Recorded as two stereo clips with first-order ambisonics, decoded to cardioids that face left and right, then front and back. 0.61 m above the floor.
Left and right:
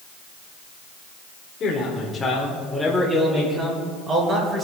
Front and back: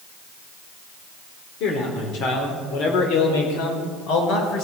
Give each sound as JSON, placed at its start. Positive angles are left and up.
{"t": 1.6, "sound": "a man speaking", "azimuth_deg": 30, "distance_m": 1.9}